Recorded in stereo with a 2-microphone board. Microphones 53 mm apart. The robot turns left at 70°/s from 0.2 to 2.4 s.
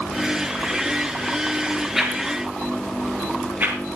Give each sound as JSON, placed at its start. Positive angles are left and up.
{"t": 1.9, "sound": "a whoosh", "side_deg": -5, "distance_m": 4.5}